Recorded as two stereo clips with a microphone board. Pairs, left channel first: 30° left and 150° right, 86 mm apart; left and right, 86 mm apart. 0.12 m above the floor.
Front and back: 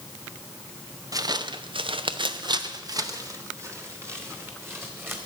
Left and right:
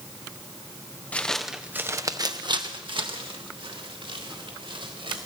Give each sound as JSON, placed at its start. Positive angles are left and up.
{"t": 1.1, "sound": "footsteps", "azimuth_deg": 165, "distance_m": 1.3}